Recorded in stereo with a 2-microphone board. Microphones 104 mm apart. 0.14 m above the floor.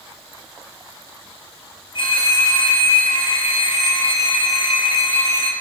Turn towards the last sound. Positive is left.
turn(degrees=50)  # may be behind; listen again after turning